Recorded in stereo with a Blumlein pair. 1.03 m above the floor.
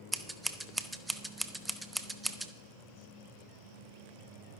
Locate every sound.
0.1 s scissors: 10° right, 0.9 m